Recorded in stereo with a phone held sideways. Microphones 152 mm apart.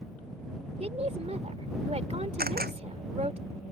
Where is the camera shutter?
85° right.